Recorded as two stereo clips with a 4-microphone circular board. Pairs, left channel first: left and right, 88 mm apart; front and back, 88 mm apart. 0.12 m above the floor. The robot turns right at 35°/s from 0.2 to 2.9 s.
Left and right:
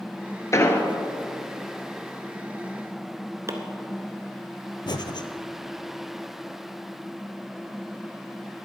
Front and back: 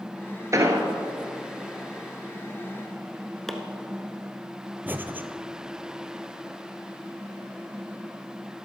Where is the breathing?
115° left, 0.6 m.